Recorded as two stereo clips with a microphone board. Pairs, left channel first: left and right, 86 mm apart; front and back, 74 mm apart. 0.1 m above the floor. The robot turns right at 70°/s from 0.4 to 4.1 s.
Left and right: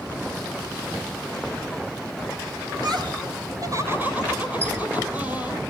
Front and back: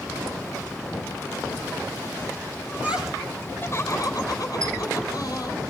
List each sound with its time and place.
2.7 s laughter: 120° right, 3.5 m; by 5.6 s 25° right, 3.5 m
4.6 s a squeak: 145° right, 3 m